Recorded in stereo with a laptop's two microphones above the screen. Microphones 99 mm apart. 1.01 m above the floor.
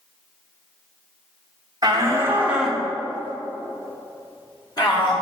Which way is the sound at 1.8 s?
40° right (ahead or behind).